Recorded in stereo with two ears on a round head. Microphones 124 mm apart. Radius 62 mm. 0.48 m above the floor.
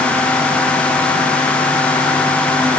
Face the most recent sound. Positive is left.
No sound to turn to.